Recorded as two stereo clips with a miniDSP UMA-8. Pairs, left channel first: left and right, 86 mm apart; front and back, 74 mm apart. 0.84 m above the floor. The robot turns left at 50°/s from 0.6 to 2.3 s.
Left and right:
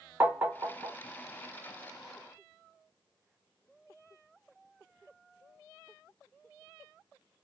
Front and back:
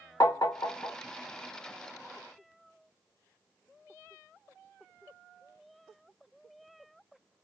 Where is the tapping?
25° right, 0.9 m; by 1.0 s 45° right, 0.9 m.